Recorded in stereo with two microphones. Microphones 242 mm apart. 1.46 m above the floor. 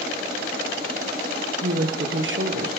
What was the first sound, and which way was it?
A woman speaking, 55° right (ahead or behind).